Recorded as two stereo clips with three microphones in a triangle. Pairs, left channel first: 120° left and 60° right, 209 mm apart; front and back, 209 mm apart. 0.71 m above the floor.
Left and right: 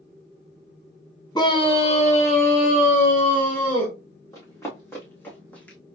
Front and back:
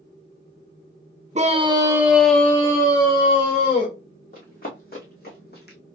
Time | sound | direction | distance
1.4 | a scream | 175° left | 1.0 m
4.3 | running footsteps | 45° left | 2.5 m